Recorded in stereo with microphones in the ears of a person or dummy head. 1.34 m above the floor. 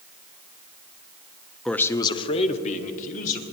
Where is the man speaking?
5° left (ahead or behind), 0.5 m; by 3.4 s 50° left (ahead or behind), 1.6 m.